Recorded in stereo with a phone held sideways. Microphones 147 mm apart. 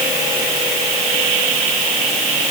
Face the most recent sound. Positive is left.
No sound to turn to.